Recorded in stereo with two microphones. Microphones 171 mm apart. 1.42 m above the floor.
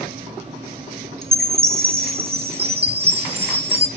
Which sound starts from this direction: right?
A chime, at 1.2 s.